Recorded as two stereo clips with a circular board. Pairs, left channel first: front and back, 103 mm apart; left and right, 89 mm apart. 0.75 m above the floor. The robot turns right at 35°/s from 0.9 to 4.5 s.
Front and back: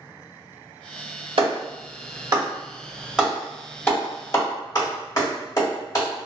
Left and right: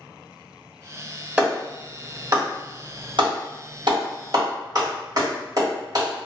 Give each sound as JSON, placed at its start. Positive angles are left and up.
{"t": 1.4, "sound": "a clap", "azimuth_deg": -160, "distance_m": 1.6}